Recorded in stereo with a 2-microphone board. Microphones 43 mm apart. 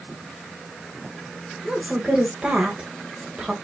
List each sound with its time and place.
1.6 s a woman speaking: 20° right (ahead or behind), 1.3 m